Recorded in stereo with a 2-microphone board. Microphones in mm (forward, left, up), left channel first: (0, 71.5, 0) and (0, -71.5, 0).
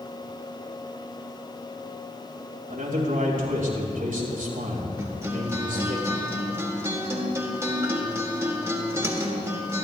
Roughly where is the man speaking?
Right.